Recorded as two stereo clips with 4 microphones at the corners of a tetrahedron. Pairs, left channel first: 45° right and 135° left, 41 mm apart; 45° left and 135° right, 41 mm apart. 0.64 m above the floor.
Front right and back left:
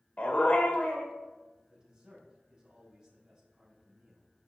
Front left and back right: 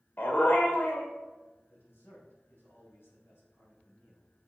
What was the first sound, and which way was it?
A dog barking, 10° left.